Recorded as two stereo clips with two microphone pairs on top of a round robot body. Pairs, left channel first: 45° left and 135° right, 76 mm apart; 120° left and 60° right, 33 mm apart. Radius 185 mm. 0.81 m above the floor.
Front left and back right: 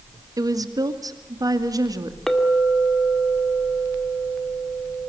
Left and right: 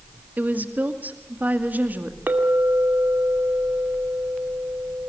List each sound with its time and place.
0.4 s a woman speaking: 95° right, 2.5 m
2.3 s a clink: 40° right, 2 m